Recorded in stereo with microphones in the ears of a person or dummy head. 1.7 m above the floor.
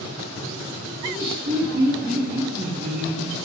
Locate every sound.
1.0 s laughter: 30° right (ahead or behind), 2.0 m